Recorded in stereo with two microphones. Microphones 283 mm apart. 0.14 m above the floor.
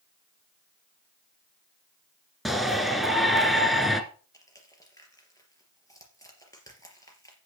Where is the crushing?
10° left (ahead or behind), 3.5 m.